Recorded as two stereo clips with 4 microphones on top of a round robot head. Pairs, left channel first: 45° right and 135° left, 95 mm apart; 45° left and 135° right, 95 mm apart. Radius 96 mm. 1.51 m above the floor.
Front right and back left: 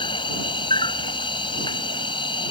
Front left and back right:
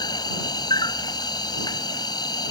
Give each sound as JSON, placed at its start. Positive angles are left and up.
{"t": 0.0, "sound": "an insect", "azimuth_deg": -5}